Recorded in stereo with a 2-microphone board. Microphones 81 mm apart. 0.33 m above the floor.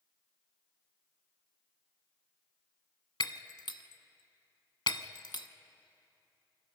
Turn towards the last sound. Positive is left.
turn(degrees=80)